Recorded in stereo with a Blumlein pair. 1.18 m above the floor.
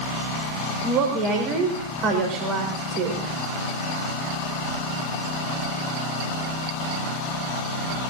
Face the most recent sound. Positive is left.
turn(degrees=-35)